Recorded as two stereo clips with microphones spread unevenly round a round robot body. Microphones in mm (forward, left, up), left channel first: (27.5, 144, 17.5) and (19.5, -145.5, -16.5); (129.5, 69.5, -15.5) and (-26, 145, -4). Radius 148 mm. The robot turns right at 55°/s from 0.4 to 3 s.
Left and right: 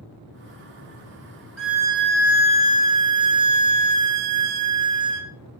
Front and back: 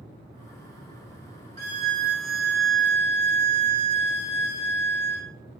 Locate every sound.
1.6 s a violin: straight behind, 0.5 m; by 5.3 s 100° right, 0.5 m